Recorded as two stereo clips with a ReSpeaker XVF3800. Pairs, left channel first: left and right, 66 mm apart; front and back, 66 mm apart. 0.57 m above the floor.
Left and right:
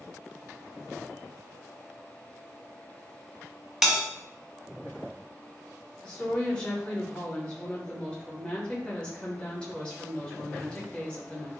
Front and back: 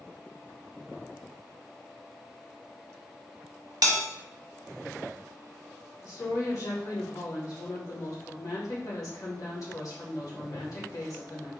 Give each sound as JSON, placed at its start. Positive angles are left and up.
{"t": 3.8, "sound": "a bell", "azimuth_deg": -175, "distance_m": 0.9}
{"t": 6.0, "sound": "a woman speaking", "azimuth_deg": 15, "distance_m": 1.8}